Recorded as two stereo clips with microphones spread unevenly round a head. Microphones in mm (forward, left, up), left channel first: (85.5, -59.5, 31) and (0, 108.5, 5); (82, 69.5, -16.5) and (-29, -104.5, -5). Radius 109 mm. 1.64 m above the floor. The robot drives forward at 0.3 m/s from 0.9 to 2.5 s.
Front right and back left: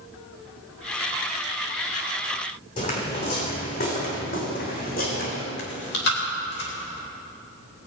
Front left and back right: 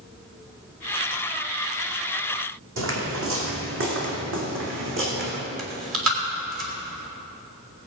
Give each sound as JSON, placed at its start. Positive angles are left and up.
{"t": 2.8, "sound": "footsteps", "azimuth_deg": -125, "distance_m": 4.0}
{"t": 5.6, "sound": "chewing", "azimuth_deg": -105, "distance_m": 3.0}